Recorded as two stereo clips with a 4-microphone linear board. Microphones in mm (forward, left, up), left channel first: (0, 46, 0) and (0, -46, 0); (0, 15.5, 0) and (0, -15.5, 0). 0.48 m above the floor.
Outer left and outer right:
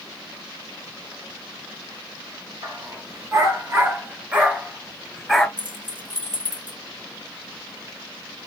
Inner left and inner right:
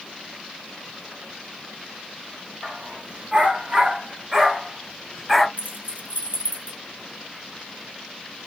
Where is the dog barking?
45° right (ahead or behind), 2 m; by 5.5 s centre (ahead or behind), 1.9 m.